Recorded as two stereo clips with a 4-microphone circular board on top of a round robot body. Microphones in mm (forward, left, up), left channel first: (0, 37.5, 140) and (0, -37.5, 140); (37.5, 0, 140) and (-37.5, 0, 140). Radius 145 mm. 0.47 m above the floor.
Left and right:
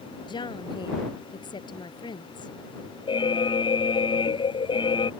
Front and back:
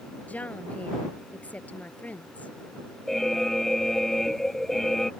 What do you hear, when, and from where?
0.3 s a woman speaking: 70° left
3.1 s an alarm: 85° left